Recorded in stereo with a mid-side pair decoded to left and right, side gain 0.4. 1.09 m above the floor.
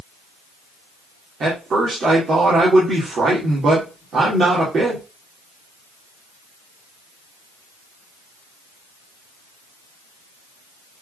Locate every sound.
1.4 s a man speaking: 55° right, 2.5 m